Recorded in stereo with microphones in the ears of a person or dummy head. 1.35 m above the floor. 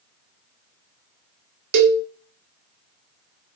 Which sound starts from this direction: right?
A cowbell, at 1.7 s.